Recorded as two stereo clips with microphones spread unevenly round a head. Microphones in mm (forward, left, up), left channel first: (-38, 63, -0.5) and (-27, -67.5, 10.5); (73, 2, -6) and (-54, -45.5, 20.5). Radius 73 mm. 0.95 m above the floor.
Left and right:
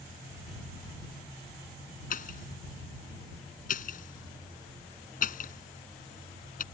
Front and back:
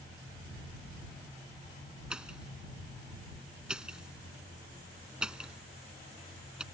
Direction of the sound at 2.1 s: 115° left.